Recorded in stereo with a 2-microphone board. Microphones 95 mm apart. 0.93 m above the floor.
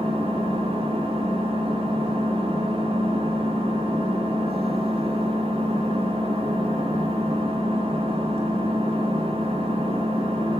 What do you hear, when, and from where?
0.0 s an engine running: 75° right (ahead or behind), 1.8 m